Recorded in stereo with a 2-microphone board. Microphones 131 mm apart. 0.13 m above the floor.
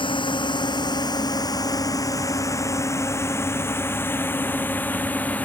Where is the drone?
40° left (ahead or behind); by 5.5 s 10° left (ahead or behind).